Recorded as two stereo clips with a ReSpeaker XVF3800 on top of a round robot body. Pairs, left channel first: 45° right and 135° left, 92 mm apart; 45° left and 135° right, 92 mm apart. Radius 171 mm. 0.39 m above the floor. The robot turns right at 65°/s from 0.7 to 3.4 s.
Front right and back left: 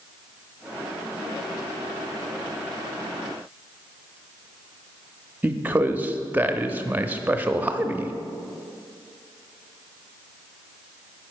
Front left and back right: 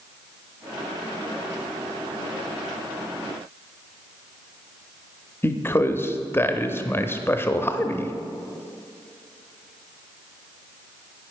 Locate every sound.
5.4 s a man speaking: 80° left, 0.8 m